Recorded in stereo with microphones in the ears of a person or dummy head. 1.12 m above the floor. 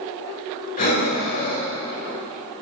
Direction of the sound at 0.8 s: 45° left (ahead or behind).